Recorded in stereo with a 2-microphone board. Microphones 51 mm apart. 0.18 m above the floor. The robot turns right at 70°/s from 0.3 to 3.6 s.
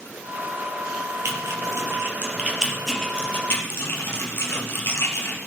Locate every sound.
1.2 s typing on a keyboard: 65° right (ahead or behind), 4.5 m; by 5.4 s 50° left (ahead or behind), 4.5 m